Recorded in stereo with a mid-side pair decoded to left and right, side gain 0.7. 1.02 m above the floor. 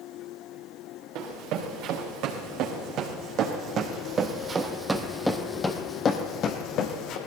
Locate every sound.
1.1 s running footsteps: 65° right, 5 m; by 7.2 s 60° left, 2.5 m